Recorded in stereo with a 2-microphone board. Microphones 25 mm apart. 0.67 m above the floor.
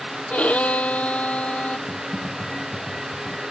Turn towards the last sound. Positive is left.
turn(degrees=-20)  # may be behind; listen again after turning